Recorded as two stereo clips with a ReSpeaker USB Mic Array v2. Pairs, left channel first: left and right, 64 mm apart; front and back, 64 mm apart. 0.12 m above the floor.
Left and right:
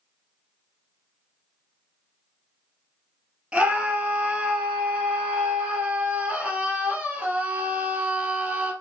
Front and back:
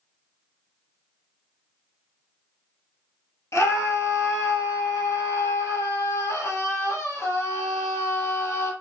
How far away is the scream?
About 2.5 m.